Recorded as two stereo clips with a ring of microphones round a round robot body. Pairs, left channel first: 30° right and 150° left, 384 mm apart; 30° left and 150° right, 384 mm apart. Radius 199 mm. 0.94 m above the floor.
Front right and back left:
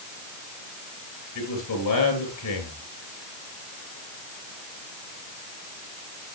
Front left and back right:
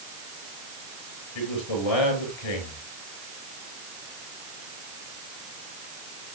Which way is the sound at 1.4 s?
15° left.